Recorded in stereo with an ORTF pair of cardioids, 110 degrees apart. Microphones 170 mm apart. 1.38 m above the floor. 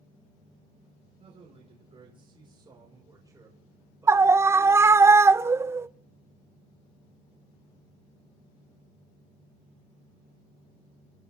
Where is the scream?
15° right, 0.6 m.